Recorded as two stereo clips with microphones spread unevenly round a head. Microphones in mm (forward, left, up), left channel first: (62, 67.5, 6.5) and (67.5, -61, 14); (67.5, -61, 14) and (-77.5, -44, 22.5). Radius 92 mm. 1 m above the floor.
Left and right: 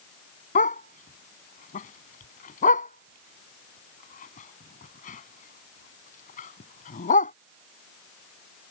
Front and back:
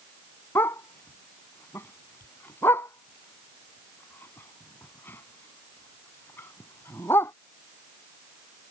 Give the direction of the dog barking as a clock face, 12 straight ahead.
10 o'clock.